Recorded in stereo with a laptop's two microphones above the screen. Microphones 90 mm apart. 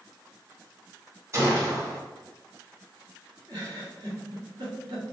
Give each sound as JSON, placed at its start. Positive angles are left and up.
{"t": 1.3, "sound": "a gunshot", "side_deg": -40, "distance_m": 1.6}
{"t": 3.5, "sound": "a giggle", "side_deg": -60, "distance_m": 1.6}